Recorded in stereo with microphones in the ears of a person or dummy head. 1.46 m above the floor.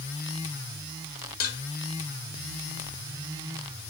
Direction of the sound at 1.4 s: 50° left (ahead or behind).